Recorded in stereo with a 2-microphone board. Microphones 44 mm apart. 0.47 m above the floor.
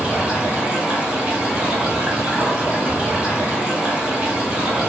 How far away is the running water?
About 1.5 m.